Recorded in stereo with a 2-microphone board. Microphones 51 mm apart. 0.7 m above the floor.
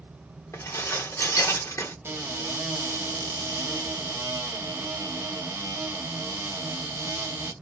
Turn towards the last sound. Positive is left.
turn(degrees=-55)  # may be behind; listen again after turning